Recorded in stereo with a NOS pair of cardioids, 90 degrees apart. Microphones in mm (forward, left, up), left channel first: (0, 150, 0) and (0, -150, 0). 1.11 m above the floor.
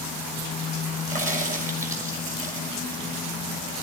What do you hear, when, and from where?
1.1 s a crack: 25° right, 6.5 m